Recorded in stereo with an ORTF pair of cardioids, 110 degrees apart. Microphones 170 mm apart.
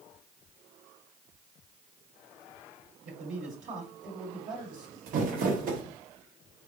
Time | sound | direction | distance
3.0 | a man speaking | 50° right | 1.6 m
5.1 | crumpling | 60° right | 1.3 m